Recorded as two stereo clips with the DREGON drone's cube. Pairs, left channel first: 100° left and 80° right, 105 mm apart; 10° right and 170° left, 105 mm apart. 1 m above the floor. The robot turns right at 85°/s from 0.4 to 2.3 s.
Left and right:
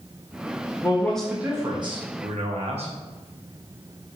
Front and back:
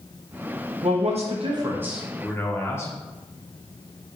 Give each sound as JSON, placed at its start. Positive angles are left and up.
{"t": 0.8, "sound": "a man speaking", "azimuth_deg": 155, "distance_m": 0.9}